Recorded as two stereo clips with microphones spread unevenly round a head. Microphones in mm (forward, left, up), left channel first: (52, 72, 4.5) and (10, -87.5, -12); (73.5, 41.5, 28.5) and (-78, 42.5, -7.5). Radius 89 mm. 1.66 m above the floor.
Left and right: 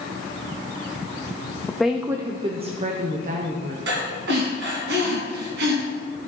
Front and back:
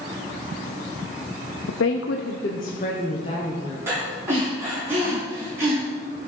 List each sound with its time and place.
1.7 s a woman speaking: 10° right, 0.7 m; by 3.8 s 70° right, 1.7 m
3.9 s breathing: 95° right, 3 m